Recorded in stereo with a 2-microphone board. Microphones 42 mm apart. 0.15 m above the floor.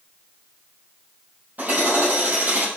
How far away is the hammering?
About 5 m.